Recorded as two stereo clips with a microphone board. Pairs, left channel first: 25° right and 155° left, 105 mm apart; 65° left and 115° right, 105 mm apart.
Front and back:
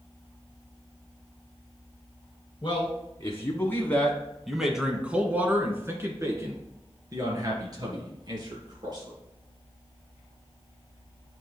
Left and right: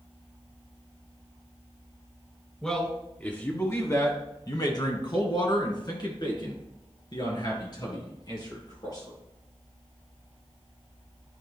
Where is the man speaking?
10° right, 1.4 m; by 9.2 s 115° left, 3.5 m.